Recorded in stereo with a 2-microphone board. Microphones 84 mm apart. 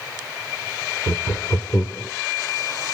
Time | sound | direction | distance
1.1 | laughter | 35° left (ahead or behind) | 1.1 m